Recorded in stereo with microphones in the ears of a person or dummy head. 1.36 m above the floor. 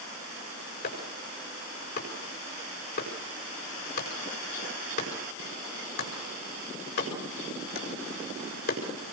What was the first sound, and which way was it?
Chopping, 60° left (ahead or behind).